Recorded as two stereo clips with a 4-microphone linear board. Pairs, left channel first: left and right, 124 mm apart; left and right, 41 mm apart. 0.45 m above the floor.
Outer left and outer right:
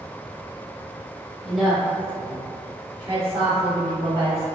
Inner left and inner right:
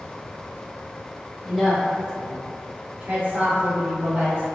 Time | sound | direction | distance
1.4 | a woman speaking | centre (ahead or behind) | 1.0 m